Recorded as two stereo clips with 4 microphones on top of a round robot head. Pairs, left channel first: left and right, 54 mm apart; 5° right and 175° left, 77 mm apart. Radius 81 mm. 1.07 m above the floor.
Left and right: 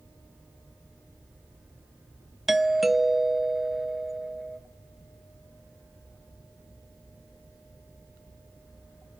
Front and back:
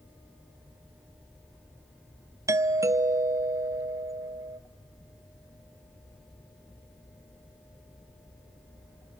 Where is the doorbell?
175° right, 0.8 m.